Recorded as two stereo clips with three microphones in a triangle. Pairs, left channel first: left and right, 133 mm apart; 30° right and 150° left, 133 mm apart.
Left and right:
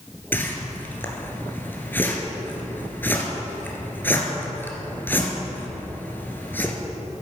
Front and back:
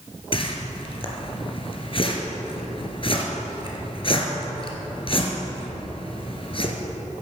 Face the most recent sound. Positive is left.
turn(degrees=15)